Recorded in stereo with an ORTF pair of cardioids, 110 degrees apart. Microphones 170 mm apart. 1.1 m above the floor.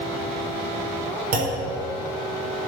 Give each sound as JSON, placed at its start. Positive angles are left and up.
{"t": 1.3, "sound": "a clunk", "azimuth_deg": -60, "distance_m": 4.5}